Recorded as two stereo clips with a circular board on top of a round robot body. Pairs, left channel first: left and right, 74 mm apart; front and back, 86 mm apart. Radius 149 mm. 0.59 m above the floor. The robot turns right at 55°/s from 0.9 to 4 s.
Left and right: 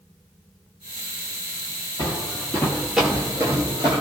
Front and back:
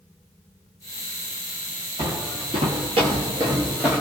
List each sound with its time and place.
2.0 s footsteps: 130° left, 1.5 m; by 4.0 s 80° right, 0.5 m